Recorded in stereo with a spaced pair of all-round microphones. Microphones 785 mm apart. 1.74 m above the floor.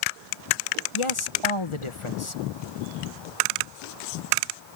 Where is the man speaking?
40° left (ahead or behind).